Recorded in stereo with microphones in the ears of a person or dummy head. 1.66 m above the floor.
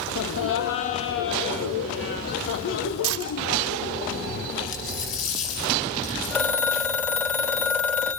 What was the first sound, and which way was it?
Laughter, 75° left (ahead or behind).